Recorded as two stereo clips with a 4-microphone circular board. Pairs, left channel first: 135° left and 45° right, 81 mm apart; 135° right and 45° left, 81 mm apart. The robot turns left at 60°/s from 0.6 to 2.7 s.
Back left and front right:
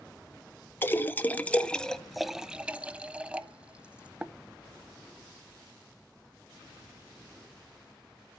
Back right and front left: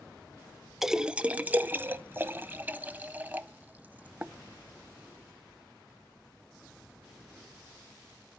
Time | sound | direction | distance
0.8 | a splash | 125° left | 0.6 m